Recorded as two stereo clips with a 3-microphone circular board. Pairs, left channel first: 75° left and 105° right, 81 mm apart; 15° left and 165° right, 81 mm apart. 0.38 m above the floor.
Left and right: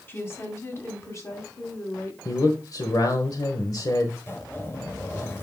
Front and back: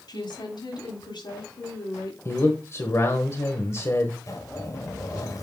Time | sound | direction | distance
0.1 | a woman speaking | 15° left | 2 m
2.2 | a man speaking | 55° left | 1.2 m
4.3 | a zipper | 30° left | 1.9 m